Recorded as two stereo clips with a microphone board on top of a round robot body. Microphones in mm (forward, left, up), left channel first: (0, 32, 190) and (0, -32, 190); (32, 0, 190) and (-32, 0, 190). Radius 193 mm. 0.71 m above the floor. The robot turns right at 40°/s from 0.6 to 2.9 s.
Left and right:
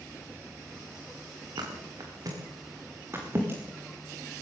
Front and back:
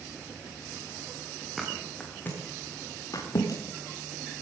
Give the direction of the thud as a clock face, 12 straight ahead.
3 o'clock.